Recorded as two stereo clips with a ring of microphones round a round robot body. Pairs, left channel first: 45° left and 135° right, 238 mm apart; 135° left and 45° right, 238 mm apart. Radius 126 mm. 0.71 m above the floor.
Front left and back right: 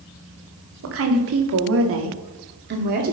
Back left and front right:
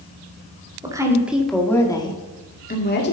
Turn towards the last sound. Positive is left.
turn(degrees=175)